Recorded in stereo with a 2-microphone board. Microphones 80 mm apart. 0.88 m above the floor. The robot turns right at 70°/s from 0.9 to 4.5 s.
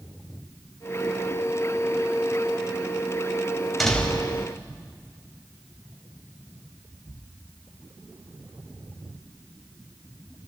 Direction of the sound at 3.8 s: Straight ahead.